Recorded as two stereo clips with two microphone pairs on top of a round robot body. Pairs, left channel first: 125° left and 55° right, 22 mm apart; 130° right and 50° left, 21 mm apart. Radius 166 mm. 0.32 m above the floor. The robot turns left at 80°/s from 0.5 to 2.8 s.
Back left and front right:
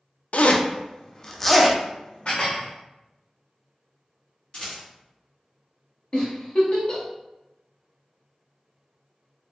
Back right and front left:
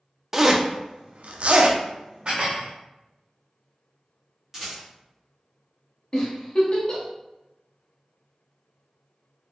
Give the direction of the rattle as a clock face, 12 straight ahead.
8 o'clock.